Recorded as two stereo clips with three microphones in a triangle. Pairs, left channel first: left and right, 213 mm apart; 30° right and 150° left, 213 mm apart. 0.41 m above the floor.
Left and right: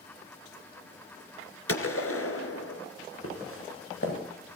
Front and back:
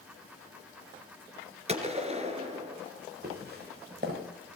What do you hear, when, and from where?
1.7 s a gunshot: 90° left, 2.5 m
3.2 s footsteps: 105° left, 6.5 m